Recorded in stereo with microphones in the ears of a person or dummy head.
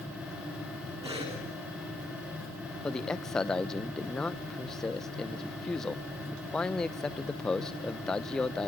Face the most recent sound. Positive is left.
turn(degrees=5)  # may be behind; listen again after turning